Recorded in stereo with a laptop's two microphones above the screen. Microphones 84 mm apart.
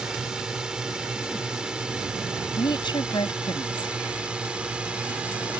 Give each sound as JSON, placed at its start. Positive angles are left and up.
{"t": 0.0, "sound": "a drone", "side_deg": -5}
{"t": 2.6, "sound": "a woman speaking", "side_deg": 65}